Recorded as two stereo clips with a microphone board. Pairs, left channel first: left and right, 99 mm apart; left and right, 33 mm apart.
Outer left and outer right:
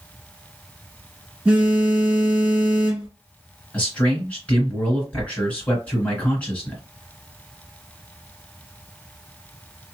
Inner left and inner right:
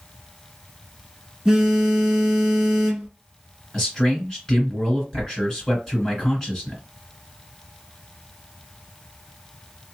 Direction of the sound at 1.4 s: 10° right (ahead or behind).